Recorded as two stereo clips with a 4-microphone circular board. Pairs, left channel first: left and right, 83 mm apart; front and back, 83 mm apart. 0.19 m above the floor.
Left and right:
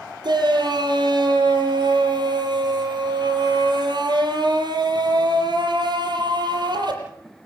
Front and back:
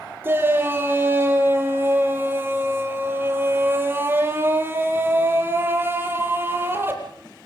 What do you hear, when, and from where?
0.2 s a shout: 120° right, 6.5 m